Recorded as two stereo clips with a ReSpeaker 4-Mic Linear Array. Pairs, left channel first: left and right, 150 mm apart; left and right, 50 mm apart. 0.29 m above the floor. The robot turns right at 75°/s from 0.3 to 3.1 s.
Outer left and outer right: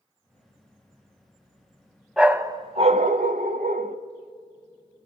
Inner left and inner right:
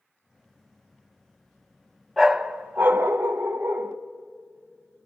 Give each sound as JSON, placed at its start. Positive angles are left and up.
{"t": 2.2, "sound": "a dog barking", "azimuth_deg": -175, "distance_m": 0.7}